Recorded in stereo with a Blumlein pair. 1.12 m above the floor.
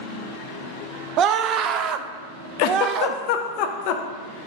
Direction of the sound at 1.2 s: 30° right.